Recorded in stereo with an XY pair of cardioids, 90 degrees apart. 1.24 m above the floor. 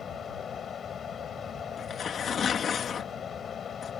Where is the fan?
60° left.